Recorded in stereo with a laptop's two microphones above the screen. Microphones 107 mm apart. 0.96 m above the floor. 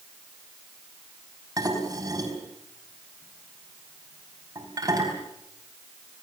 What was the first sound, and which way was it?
Dishes clattering, 35° right (ahead or behind).